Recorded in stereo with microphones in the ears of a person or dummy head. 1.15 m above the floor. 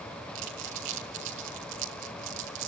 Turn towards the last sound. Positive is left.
turn(degrees=-70)  # may be behind; listen again after turning